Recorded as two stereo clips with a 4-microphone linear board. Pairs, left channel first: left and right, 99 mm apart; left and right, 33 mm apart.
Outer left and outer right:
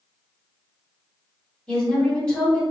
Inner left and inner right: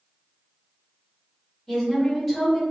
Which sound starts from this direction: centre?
A woman speaking, at 1.7 s.